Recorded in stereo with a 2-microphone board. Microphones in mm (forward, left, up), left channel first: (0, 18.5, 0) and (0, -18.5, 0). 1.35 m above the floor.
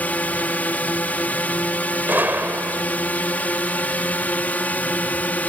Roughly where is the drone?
Left.